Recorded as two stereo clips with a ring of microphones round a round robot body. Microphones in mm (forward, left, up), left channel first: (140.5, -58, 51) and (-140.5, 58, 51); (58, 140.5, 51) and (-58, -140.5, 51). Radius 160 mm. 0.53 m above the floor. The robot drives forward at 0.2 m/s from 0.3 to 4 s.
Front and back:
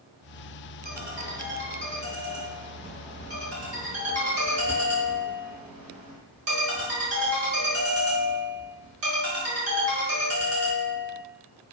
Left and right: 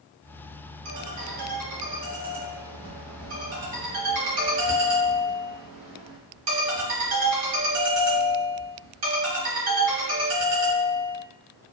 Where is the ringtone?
140° right, 1.0 m; by 11.2 s 155° right, 1.5 m.